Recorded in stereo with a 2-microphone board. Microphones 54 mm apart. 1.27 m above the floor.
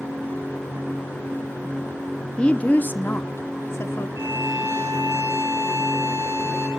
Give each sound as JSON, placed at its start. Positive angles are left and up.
{"t": 2.4, "sound": "a woman speaking", "side_deg": 20, "distance_m": 0.7}
{"t": 4.2, "sound": "a violin", "side_deg": -75, "distance_m": 5.0}